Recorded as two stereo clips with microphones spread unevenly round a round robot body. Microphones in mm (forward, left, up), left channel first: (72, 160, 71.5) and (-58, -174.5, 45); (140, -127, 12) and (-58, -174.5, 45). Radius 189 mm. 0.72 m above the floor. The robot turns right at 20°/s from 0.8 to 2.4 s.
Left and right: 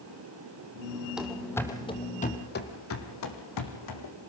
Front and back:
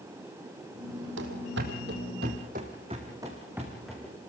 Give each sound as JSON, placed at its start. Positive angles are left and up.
{"t": 1.2, "sound": "running footsteps", "azimuth_deg": 160, "distance_m": 1.8}